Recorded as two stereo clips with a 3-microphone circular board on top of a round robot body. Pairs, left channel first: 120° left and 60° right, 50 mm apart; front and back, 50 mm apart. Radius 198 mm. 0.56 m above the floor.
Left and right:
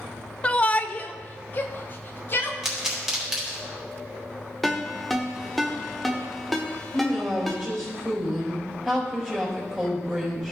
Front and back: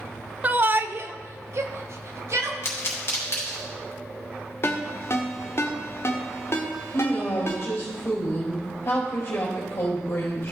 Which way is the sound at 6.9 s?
15° left.